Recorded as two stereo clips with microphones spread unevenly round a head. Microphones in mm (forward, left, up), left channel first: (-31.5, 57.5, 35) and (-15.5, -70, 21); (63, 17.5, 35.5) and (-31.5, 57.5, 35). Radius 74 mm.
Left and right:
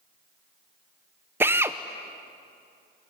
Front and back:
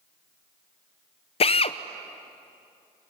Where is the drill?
5° right, 0.6 m.